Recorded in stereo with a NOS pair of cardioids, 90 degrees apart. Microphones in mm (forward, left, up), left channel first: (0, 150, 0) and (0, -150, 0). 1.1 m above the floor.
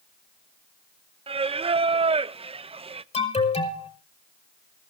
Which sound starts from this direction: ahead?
Singing, at 1.3 s.